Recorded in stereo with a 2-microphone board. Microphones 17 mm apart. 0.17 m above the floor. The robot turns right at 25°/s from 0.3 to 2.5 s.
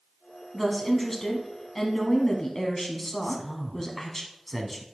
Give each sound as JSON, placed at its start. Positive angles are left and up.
{"t": 0.5, "sound": "a woman speaking", "side_deg": 10, "distance_m": 1.0}
{"t": 3.2, "sound": "a man speaking", "side_deg": 10, "distance_m": 1.0}